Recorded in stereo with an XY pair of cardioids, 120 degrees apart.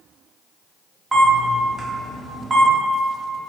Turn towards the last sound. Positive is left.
turn(degrees=-15)